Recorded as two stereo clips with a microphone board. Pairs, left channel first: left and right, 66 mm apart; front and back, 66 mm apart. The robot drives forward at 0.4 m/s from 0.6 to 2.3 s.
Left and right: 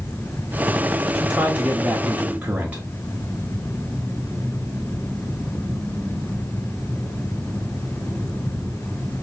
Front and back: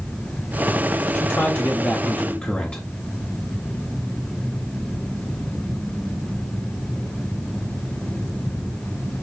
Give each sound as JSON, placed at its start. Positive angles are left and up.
{"t": 1.1, "sound": "a man speaking", "azimuth_deg": -25, "distance_m": 1.2}